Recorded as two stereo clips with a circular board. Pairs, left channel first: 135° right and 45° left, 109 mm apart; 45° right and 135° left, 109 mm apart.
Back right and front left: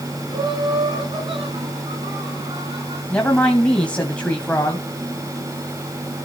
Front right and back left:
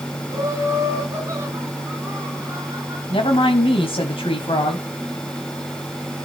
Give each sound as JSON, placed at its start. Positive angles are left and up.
{"t": 0.3, "sound": "laughter", "azimuth_deg": 75, "distance_m": 3.0}
{"t": 3.1, "sound": "a woman speaking", "azimuth_deg": -60, "distance_m": 2.5}